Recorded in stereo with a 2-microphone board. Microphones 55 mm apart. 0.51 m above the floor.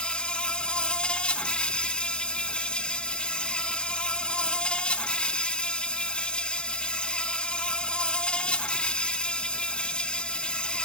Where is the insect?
15° left (ahead or behind), 0.7 m.